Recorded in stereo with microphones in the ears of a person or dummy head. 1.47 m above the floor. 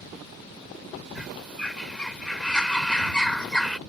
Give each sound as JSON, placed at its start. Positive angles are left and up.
{"t": 1.1, "sound": "a bird", "side_deg": 5}